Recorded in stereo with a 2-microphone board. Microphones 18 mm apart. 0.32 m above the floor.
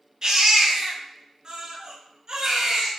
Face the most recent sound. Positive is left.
turn(degrees=-40)  # may be behind; listen again after turning